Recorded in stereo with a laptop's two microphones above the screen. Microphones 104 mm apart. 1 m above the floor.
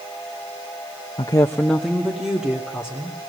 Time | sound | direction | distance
1.2 | a woman speaking | 50° left (ahead or behind) | 0.5 m